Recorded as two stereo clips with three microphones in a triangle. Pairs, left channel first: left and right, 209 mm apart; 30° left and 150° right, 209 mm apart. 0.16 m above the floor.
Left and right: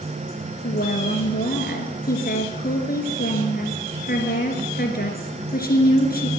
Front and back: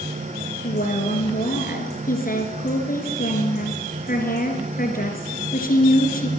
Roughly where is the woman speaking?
Ahead left.